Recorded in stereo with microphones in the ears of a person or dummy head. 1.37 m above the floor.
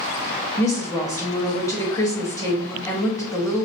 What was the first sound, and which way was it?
A woman speaking, 20° left (ahead or behind).